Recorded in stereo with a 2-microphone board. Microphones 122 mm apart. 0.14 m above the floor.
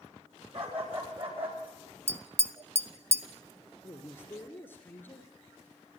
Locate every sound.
0.5 s a dog barking: 55° right (ahead or behind), 10 m
2.1 s tapping: 20° right (ahead or behind), 1.0 m
3.8 s a man speaking: 20° left (ahead or behind), 2 m